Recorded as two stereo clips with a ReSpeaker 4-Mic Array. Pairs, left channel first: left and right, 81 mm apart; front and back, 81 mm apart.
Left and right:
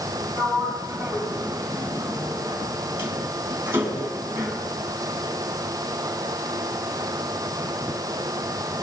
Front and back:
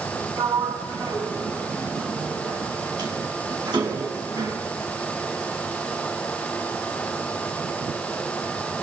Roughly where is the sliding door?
Behind right.